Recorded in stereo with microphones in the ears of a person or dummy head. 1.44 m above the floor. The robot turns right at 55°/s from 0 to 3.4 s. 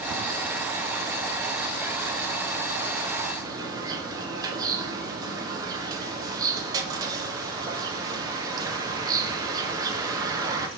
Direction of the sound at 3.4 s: 25° right (ahead or behind).